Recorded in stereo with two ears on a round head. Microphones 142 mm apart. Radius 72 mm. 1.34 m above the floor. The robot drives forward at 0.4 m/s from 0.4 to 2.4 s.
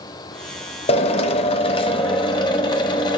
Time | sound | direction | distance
0.9 | a drill | 35° left (ahead or behind) | 0.7 m